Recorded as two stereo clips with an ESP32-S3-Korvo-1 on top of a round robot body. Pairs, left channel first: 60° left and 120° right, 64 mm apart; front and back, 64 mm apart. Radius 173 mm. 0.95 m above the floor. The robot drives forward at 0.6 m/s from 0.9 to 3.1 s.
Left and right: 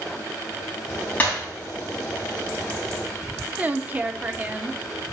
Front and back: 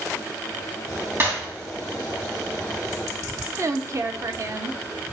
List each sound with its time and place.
1.2 s breaking glass: 130° left, 3 m
3.6 s a woman speaking: 175° right, 0.6 m